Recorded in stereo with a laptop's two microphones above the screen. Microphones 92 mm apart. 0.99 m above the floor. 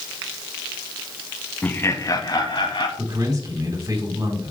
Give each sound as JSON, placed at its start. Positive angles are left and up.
{"t": 1.6, "sound": "laughter", "side_deg": 15, "distance_m": 1.2}
{"t": 3.0, "sound": "a man speaking", "side_deg": -45, "distance_m": 3.5}